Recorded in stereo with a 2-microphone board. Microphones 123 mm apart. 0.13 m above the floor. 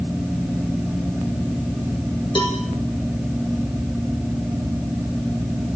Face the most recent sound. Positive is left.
turn(degrees=40)  # may be behind; listen again after turning